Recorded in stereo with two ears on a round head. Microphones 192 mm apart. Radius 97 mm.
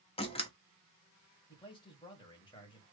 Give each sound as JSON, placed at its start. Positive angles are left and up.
{"t": 0.2, "sound": "a door slam", "side_deg": 25, "distance_m": 0.9}
{"t": 1.5, "sound": "a man speaking", "side_deg": 20, "distance_m": 1.6}